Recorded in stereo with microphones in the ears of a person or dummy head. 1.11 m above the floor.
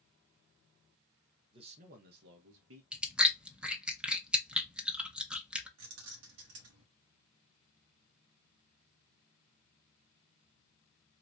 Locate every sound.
1.5 s a man speaking: 25° right (ahead or behind), 0.9 m; by 2.8 s 80° right, 1.3 m
2.9 s chewing: 5° right (ahead or behind), 0.7 m
5.8 s keys jangling: 80° right, 1.2 m